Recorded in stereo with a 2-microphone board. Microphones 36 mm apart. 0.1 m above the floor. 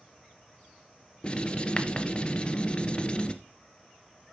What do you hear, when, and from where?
1.2 s writing: 30° left (ahead or behind), 0.9 m